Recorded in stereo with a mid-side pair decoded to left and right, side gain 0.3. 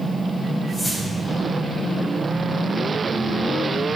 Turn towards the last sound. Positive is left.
turn(degrees=30)